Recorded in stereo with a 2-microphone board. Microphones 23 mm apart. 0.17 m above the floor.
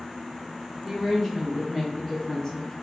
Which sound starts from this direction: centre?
A woman speaking, at 0.8 s.